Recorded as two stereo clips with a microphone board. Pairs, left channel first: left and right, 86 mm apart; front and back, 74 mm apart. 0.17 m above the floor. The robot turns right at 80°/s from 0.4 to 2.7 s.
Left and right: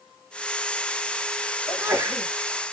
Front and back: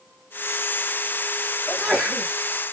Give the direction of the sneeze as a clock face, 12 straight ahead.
4 o'clock.